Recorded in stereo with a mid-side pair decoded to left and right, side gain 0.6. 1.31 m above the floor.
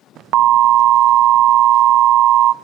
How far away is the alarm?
About 0.6 m.